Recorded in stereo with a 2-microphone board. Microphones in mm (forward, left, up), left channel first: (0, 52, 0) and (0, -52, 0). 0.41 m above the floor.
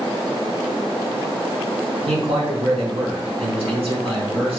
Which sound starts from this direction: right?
A man speaking, at 2.1 s.